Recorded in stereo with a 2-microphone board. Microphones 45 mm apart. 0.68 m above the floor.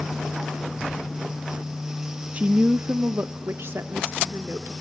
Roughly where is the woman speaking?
Right.